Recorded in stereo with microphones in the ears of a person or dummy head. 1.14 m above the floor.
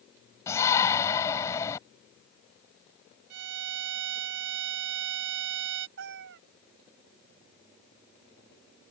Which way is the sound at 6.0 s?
70° right (ahead or behind).